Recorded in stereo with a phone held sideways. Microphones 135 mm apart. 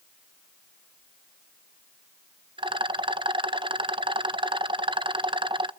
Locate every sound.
2.6 s a rattle: 40° right (ahead or behind), 0.6 m